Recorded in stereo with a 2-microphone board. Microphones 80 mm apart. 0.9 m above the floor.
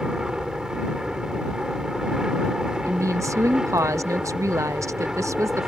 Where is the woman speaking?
40° right (ahead or behind).